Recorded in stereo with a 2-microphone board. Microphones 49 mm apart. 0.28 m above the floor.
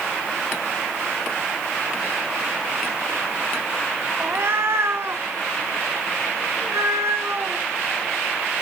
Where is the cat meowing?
50° right (ahead or behind), 0.7 m; by 7.6 s 75° right (ahead or behind), 2.5 m.